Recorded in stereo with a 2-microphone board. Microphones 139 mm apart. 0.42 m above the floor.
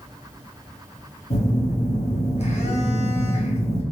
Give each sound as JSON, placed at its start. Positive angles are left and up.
{"t": 1.3, "sound": "a phone buzzing", "side_deg": 50, "distance_m": 1.0}